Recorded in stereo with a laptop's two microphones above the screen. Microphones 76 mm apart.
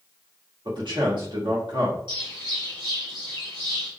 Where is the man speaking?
75° right (ahead or behind), 1.8 m.